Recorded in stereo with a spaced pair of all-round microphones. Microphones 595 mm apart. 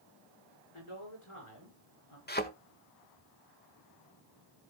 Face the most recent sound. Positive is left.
turn(degrees=15)  # may be behind; listen again after turning